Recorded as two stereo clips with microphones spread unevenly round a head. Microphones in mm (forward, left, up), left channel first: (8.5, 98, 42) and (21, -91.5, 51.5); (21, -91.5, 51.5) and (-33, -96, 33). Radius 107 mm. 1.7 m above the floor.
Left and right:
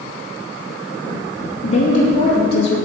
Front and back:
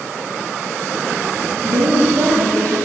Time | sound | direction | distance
1.6 | a woman speaking | 155° left | 3 m